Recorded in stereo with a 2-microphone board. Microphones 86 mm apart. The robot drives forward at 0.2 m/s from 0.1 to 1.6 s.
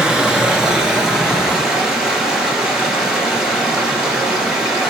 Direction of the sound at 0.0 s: 10° right (ahead or behind).